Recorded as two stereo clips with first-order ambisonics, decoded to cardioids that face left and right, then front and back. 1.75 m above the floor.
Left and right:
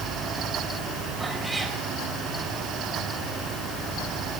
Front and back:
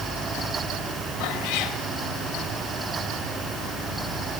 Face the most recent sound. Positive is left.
turn(degrees=-10)